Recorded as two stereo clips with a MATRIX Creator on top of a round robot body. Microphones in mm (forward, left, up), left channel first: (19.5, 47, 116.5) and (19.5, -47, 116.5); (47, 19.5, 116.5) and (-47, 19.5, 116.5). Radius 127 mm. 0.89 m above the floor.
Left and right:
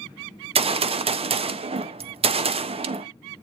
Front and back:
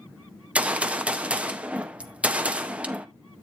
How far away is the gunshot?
About 0.7 m.